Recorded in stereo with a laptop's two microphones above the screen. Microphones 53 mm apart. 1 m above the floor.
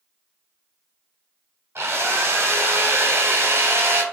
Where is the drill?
50° right (ahead or behind), 0.9 m.